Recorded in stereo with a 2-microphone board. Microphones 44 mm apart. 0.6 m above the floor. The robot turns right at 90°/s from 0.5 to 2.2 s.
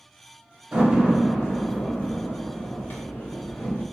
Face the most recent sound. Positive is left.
turn(degrees=55)  # may be behind; listen again after turning